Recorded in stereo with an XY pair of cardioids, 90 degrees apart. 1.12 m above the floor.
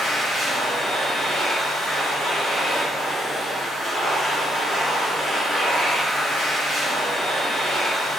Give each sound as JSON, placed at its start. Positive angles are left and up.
{"t": 0.0, "sound": "a machine running", "azimuth_deg": -55, "distance_m": 1.6}